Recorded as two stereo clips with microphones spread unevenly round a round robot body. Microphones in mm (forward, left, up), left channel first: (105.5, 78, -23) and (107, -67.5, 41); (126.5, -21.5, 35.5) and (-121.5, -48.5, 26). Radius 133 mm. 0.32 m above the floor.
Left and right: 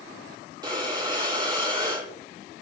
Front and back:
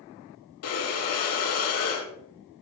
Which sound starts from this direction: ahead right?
Breathing, at 0.6 s.